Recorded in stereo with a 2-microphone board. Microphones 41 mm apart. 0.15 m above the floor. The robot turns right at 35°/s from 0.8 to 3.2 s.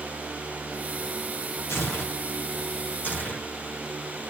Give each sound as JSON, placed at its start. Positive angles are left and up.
{"t": 1.7, "sound": "tearing paper", "side_deg": 85, "distance_m": 1.8}